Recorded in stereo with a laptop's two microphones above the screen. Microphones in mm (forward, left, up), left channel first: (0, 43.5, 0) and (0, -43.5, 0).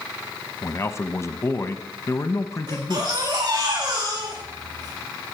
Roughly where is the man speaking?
Left.